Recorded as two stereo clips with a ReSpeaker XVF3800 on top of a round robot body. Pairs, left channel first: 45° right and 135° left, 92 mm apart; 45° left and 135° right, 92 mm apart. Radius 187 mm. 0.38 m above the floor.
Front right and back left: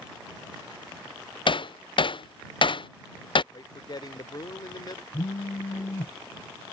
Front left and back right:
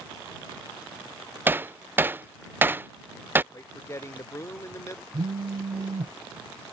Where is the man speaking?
10° right.